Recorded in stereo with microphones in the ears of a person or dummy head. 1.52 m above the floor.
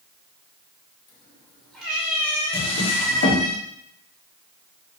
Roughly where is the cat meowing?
Centre.